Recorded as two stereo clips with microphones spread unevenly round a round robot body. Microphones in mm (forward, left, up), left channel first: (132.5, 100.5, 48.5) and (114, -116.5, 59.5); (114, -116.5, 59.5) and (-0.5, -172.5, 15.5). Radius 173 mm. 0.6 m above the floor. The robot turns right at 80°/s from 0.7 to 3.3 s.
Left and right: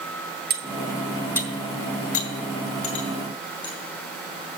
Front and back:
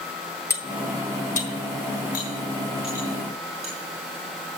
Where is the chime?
No chime in this recording.